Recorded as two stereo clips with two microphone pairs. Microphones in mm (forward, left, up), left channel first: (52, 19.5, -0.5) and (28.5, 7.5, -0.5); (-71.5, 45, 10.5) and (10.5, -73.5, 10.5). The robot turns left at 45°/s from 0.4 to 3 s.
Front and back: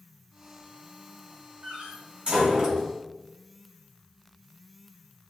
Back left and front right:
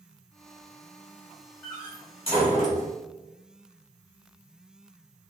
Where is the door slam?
160° right, 2.0 m; by 2.9 s 140° left, 2.0 m.